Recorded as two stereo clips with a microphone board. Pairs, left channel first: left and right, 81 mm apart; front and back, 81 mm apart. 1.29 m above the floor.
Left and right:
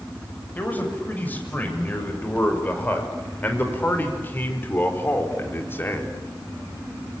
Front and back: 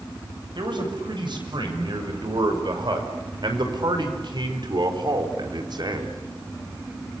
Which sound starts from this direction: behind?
A man speaking, at 0.6 s.